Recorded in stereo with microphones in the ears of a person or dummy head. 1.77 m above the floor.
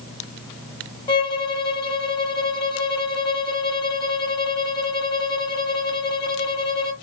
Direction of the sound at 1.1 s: 25° left (ahead or behind).